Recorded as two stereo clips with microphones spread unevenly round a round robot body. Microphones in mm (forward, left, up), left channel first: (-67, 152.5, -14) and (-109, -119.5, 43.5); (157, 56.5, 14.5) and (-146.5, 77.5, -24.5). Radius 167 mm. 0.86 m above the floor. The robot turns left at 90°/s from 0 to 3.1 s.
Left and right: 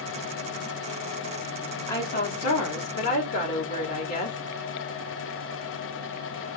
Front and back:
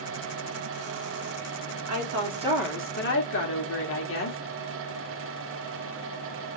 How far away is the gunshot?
I don't hear a gunshot.